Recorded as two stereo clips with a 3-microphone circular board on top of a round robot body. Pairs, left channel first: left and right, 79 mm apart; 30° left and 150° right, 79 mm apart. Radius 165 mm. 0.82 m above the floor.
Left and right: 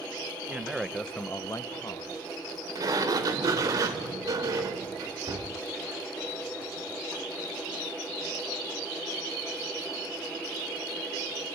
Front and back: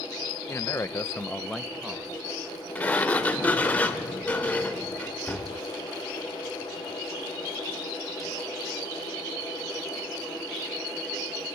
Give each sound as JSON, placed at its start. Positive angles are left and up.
{"t": 0.5, "sound": "a man speaking", "azimuth_deg": -20, "distance_m": 1.1}
{"t": 2.8, "sound": "a sliding door", "azimuth_deg": -40, "distance_m": 0.9}